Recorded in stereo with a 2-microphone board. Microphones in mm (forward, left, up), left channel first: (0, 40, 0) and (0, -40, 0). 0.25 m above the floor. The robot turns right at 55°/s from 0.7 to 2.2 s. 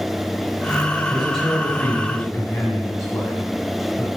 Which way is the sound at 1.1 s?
15° right.